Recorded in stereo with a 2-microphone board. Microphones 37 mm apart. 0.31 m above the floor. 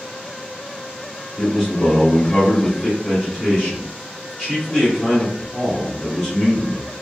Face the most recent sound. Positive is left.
turn(degrees=10)  # may be behind; listen again after turning